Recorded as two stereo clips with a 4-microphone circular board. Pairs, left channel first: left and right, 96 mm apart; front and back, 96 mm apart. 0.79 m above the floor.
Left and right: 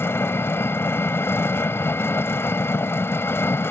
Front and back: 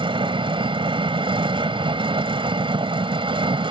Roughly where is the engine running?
Behind left.